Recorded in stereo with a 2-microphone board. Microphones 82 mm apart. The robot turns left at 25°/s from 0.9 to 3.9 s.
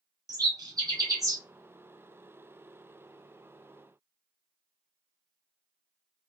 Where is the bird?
55° right (ahead or behind), 1.0 m; by 1.4 s 40° right (ahead or behind), 1.0 m.